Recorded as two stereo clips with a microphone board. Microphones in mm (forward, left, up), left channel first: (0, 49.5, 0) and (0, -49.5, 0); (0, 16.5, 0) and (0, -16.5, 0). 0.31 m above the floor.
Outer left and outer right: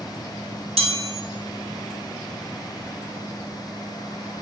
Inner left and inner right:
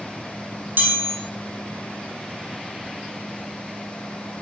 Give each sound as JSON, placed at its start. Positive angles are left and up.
{"t": 0.8, "sound": "a chime", "side_deg": -80, "distance_m": 3.0}